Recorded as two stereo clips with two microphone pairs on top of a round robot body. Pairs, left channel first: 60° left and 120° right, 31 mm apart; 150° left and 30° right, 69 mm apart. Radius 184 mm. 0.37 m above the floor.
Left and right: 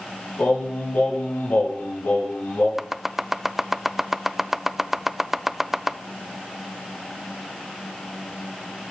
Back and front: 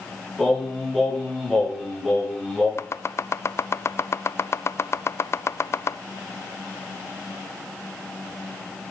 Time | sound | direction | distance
0.4 | singing | 60° left | 4 m
2.8 | chopping | 175° left | 0.5 m